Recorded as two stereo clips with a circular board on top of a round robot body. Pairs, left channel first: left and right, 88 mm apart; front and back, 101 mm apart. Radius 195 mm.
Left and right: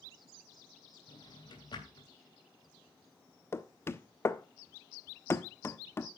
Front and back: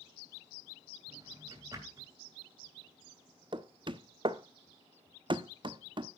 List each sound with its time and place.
1.1 s a drawer: 125° left, 3 m
3.5 s knocking: 145° left, 1.1 m